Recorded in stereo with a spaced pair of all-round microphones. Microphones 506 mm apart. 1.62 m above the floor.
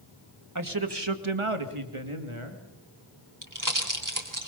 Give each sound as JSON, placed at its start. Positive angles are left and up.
{"t": 0.6, "sound": "a man speaking", "side_deg": -35, "distance_m": 2.0}
{"t": 3.4, "sound": "a pop", "side_deg": -40, "distance_m": 3.0}